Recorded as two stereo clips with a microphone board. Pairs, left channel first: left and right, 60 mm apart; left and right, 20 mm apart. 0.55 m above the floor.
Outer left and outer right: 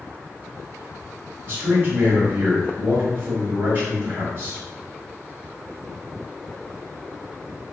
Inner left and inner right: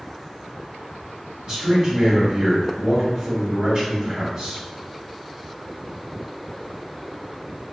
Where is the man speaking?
40° right (ahead or behind), 1.7 m.